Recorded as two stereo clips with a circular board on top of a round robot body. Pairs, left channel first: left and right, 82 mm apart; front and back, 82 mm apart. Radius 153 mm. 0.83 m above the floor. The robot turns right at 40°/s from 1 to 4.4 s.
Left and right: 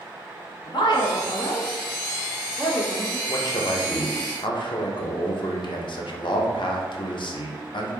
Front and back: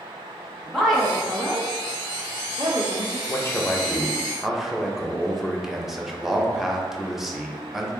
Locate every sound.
0.7 s a woman speaking: 85° left, 1.0 m; by 3.2 s 175° left, 1.0 m
3.3 s a man speaking: 50° left, 0.7 m; by 7.9 s 95° left, 0.7 m